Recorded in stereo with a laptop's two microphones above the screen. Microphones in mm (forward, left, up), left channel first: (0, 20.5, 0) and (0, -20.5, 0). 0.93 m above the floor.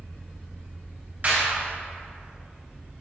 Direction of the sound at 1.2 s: 45° right (ahead or behind).